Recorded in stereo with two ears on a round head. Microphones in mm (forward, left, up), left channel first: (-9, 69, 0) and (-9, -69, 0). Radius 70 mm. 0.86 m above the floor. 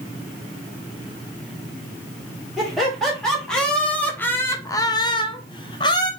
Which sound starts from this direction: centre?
Laughter, at 2.6 s.